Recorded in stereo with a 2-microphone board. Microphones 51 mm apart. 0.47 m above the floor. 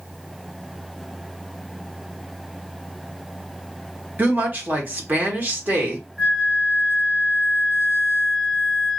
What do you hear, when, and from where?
4.2 s a woman speaking: 35° right (ahead or behind), 1.1 m
6.2 s a flute: centre (ahead or behind), 0.8 m